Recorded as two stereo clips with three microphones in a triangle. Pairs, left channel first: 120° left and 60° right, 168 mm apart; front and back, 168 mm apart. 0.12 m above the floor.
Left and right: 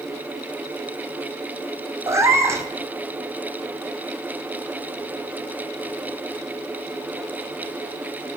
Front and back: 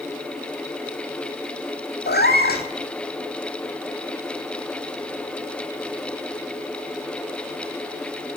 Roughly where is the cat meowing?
Ahead.